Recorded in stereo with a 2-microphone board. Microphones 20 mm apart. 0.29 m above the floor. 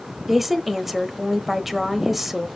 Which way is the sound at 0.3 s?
10° right (ahead or behind).